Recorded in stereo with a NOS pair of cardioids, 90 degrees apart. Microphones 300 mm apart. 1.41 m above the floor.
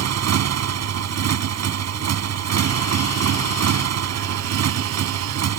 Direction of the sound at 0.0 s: 60° right.